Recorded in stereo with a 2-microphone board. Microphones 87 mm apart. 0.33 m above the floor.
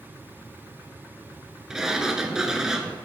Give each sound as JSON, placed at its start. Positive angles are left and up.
{"t": 1.7, "sound": "a sliding door", "side_deg": -10, "distance_m": 0.8}